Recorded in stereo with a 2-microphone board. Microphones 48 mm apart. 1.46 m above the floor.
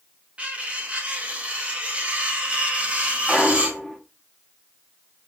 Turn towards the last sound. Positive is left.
turn(degrees=-5)  # may be behind; listen again after turning